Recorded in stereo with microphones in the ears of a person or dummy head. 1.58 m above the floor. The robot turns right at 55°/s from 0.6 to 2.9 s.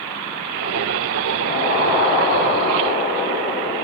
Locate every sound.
1.4 s an explosion: 70° left, 2.5 m; by 3.8 s 150° left, 2.5 m